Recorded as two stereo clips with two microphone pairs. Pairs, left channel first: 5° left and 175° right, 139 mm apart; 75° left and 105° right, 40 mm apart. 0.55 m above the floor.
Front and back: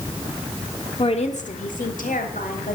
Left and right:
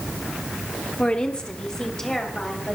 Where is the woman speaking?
35° left, 1.0 m; by 2.8 s 5° right, 3.5 m.